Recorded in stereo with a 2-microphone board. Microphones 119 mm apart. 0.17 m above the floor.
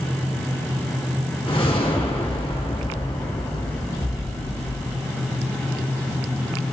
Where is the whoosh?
50° left (ahead or behind), 1.9 m.